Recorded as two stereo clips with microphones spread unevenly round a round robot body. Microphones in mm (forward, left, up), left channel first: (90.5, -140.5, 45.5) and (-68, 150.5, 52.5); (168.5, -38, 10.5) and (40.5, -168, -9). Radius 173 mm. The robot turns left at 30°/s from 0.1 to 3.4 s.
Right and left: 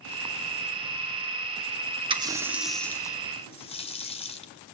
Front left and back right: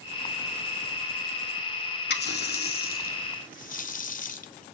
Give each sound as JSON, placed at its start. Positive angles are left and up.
{"t": 2.1, "sound": "a running tap", "azimuth_deg": 45, "distance_m": 0.8}